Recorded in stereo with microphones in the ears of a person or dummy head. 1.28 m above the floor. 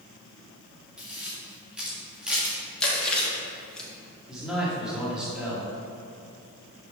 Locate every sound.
1.0 s a camera shutter: 10° right (ahead or behind), 1.7 m
2.8 s chewing: 10° left (ahead or behind), 1.8 m
4.3 s a man speaking: centre (ahead or behind), 2.5 m